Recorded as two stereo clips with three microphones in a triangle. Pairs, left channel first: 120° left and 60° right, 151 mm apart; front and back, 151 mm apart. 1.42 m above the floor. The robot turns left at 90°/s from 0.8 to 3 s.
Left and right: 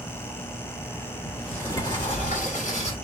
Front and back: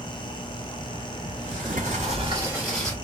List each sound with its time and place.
1.2 s a sliding door: 130° right, 1.3 m; by 3.0 s 75° left, 1.3 m